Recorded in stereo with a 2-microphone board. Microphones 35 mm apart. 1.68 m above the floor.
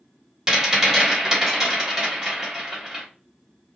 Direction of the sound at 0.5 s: 20° right (ahead or behind).